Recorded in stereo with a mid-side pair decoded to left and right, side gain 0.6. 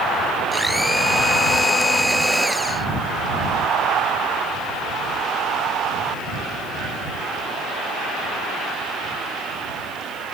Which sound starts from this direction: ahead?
A blender, at 0.5 s.